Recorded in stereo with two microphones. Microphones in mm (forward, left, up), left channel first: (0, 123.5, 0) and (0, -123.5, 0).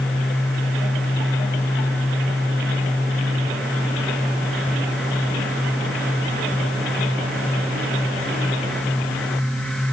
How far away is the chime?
I don't hear a chime.